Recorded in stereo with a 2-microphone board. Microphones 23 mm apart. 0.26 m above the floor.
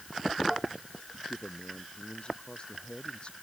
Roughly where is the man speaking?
Left.